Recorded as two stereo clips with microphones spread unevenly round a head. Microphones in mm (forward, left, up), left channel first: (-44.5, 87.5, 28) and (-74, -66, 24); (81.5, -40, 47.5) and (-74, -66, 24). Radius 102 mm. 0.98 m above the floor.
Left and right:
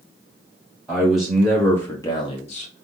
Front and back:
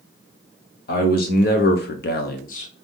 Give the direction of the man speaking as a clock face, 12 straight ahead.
1 o'clock.